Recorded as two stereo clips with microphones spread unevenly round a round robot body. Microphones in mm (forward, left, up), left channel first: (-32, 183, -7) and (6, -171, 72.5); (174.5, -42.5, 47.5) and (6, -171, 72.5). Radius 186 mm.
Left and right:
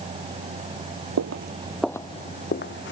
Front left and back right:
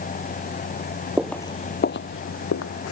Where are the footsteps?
65° right; by 2.9 s 35° left.